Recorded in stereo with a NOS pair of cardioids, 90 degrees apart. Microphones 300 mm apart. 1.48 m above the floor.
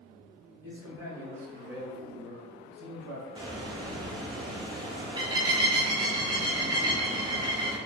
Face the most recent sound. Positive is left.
turn(degrees=-15)